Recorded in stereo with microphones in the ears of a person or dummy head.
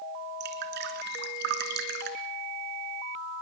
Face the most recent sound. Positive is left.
turn(degrees=-60)  # may be behind; listen again after turning